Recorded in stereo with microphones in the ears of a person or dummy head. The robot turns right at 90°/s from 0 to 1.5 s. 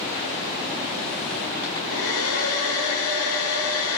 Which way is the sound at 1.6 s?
80° left.